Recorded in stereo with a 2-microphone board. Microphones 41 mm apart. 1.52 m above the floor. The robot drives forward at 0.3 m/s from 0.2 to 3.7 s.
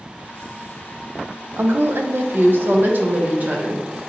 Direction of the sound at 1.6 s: 75° right (ahead or behind).